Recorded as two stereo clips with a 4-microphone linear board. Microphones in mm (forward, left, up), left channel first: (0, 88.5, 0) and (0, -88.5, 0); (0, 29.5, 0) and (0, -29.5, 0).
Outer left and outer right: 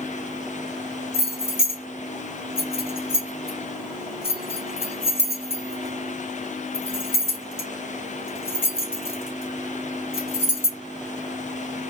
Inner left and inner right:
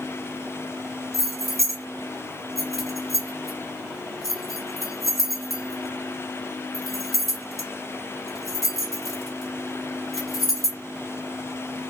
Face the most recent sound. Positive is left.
turn(degrees=-5)  # may be behind; listen again after turning